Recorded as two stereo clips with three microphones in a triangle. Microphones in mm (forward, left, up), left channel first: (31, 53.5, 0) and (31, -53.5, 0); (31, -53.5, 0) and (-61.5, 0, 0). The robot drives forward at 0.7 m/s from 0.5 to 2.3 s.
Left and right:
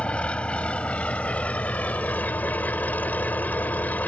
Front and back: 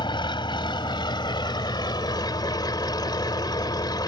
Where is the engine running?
10° left; by 4.1 s 15° left.